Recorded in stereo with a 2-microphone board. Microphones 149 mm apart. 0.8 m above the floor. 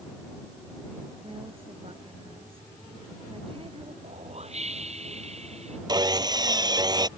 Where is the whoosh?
45° right (ahead or behind).